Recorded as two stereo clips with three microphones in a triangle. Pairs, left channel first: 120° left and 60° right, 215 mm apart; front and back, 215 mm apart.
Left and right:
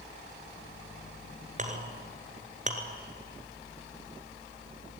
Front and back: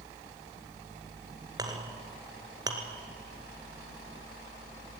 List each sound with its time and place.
1.6 s a clink: 110° right, 1.7 m